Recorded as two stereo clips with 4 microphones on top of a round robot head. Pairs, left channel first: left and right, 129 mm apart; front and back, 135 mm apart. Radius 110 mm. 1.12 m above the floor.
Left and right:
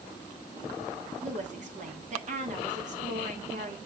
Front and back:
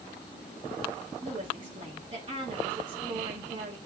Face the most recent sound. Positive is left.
turn(degrees=-120)